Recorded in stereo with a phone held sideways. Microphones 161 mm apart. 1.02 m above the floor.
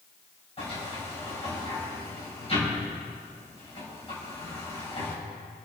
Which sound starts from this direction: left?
A sliding door, at 0.6 s.